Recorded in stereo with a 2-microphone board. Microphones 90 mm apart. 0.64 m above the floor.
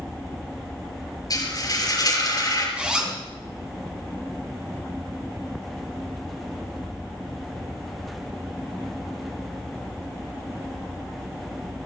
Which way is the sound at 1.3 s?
40° left (ahead or behind).